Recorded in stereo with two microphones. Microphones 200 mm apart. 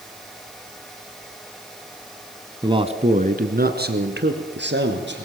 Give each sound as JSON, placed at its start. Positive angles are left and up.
{"t": 2.6, "sound": "a man speaking", "side_deg": -20, "distance_m": 1.3}